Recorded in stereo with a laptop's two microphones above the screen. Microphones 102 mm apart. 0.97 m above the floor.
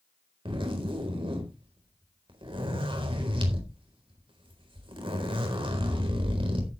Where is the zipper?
60° right (ahead or behind), 4 m.